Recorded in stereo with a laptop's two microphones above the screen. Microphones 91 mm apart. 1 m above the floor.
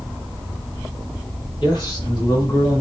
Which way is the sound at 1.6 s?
50° left (ahead or behind).